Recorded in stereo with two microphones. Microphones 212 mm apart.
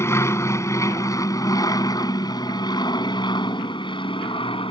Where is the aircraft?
10° left (ahead or behind); by 4.7 s 25° left (ahead or behind).